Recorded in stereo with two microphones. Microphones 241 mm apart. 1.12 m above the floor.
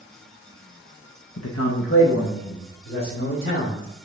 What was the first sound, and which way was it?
A man speaking, 80° left.